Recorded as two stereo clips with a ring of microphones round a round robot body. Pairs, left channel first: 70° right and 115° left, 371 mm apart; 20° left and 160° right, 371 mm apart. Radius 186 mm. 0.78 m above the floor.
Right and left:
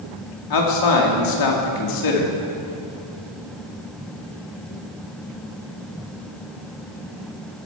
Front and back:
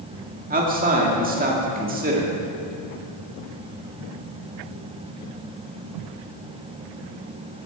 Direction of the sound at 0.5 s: 90° right.